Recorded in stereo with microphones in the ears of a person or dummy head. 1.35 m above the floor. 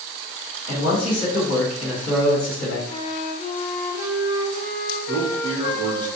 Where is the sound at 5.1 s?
35° left (ahead or behind), 1.2 m.